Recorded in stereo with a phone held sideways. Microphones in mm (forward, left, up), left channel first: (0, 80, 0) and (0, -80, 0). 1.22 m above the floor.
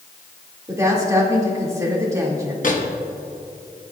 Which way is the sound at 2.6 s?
55° left (ahead or behind).